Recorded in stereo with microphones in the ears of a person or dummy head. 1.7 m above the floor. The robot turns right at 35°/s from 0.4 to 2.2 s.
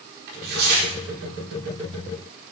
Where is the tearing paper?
65° right (ahead or behind), 4.5 m; by 0.9 s 50° right (ahead or behind), 4.5 m.